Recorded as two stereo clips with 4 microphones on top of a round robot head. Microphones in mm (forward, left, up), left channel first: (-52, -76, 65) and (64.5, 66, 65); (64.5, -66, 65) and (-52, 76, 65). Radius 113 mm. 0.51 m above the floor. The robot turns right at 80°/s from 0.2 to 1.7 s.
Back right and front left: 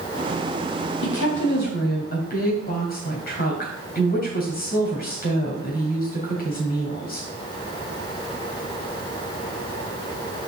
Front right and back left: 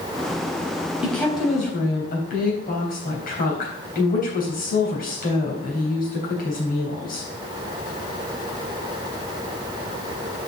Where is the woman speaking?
145° right, 3 m; by 7.3 s 90° right, 3 m.